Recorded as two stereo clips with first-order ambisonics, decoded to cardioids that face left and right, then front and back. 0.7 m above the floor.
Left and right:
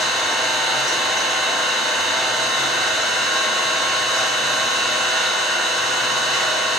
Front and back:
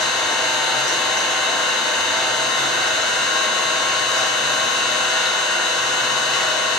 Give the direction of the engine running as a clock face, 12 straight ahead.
11 o'clock.